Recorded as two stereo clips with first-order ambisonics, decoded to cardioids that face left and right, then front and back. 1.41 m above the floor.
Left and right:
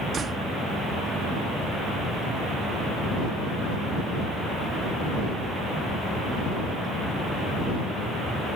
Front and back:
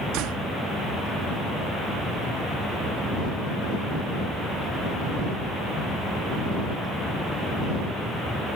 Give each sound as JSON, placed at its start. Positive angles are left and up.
{"t": 0.1, "sound": "a door slam", "azimuth_deg": -155}